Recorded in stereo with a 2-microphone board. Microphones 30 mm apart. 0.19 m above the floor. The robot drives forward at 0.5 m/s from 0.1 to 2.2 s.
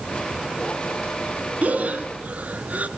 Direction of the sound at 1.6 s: 60° right (ahead or behind).